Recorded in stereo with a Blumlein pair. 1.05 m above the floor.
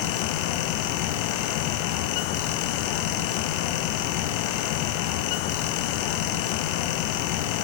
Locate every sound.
0.0 s a fan: 45° left, 0.8 m